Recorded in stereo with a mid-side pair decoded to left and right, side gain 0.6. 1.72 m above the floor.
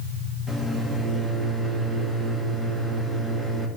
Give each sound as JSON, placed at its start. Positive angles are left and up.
{"t": 0.5, "sound": "a microwave", "azimuth_deg": 5, "distance_m": 2.0}